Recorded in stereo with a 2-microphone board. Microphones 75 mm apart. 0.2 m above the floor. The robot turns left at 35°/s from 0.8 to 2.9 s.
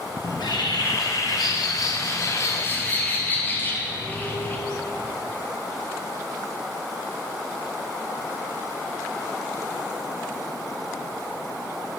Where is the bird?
100° left, 0.9 m; by 4.6 s 25° left, 0.9 m.